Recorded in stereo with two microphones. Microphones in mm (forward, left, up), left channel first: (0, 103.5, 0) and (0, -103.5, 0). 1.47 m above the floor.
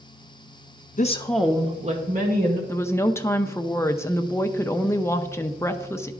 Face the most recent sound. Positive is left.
turn(degrees=15)  # may be behind; listen again after turning